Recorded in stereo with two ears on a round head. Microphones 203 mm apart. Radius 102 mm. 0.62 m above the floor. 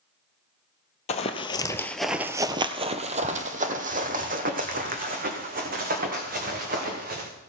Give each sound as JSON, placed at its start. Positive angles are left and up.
{"t": 1.1, "sound": "running footsteps", "side_deg": 30, "distance_m": 0.8}